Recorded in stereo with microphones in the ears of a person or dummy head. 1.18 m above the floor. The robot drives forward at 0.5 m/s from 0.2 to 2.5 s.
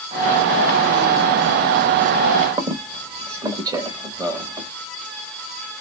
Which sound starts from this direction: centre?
A squeak, at 2.6 s.